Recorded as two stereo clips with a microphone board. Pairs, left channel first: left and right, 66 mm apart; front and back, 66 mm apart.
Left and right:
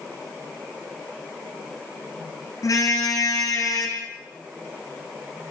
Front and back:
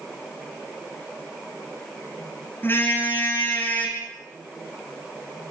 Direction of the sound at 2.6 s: 55° left.